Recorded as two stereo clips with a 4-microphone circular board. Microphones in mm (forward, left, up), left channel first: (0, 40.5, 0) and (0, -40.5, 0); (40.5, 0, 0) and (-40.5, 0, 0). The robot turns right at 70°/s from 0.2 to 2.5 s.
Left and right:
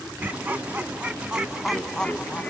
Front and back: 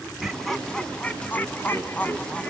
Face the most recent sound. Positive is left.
turn(degrees=55)